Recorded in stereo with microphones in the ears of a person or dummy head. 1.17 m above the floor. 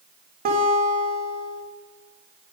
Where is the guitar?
40° right (ahead or behind), 1.3 m.